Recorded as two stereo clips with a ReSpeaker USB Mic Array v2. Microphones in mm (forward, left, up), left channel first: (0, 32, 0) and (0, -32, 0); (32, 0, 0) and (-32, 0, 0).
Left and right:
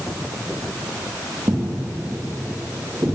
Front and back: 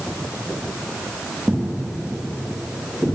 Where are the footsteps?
85° right, 2 m; by 3.1 s 70° right, 3 m.